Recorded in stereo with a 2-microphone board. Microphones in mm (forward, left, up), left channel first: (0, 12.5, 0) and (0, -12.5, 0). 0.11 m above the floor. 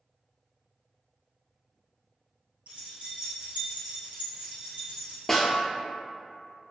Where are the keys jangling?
55° right (ahead or behind), 1.7 m.